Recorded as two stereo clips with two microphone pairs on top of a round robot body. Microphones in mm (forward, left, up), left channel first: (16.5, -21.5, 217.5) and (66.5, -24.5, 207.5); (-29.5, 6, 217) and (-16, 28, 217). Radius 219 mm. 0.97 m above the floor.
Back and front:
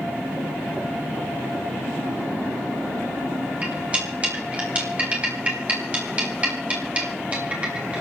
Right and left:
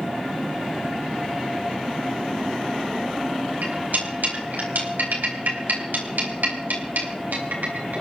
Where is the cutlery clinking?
65° left, 4 m.